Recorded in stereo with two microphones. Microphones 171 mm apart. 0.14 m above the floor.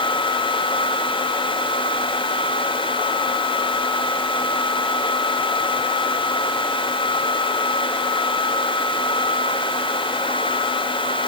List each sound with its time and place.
Only background noise.